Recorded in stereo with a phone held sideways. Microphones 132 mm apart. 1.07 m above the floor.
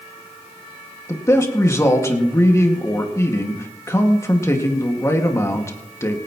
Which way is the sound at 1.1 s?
20° left (ahead or behind).